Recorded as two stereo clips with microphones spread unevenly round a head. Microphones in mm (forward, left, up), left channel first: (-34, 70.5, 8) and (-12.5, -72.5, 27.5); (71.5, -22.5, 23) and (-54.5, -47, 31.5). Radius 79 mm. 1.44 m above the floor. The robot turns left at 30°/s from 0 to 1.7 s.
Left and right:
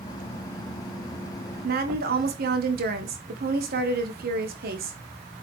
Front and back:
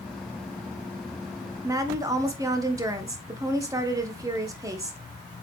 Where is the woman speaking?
100° right, 1.3 m; by 5.0 s 105° right, 1.3 m.